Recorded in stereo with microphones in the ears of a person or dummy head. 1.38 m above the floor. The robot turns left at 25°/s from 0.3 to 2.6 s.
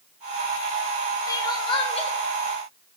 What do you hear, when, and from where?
1.3 s crying: 20° left (ahead or behind), 1.1 m; by 2.1 s 40° left (ahead or behind), 1.1 m